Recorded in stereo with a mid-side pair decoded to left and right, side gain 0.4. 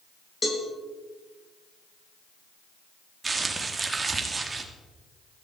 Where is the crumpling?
35° right, 2.5 m.